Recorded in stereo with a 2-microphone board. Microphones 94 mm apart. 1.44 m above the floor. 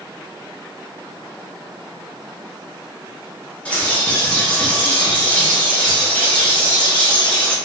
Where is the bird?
15° left (ahead or behind), 0.7 m.